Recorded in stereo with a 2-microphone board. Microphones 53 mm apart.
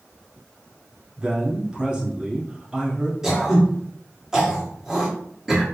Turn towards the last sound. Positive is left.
turn(degrees=-10)  # may be behind; listen again after turning